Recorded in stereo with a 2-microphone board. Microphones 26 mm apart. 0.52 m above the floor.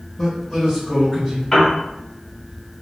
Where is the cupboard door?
I don't hear a cupboard door.